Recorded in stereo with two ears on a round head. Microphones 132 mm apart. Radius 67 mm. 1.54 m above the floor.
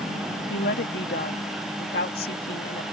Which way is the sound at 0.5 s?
75° left (ahead or behind).